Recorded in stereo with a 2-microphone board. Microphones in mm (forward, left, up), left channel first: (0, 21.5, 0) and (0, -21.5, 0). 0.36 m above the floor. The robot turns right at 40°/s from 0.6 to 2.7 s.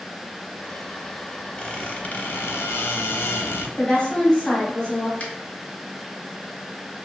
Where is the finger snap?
30° left (ahead or behind), 0.7 m.